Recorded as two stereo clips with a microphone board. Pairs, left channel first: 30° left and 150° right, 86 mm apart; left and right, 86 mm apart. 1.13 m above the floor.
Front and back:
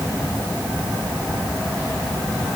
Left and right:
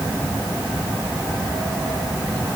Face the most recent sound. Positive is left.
No sound to turn to.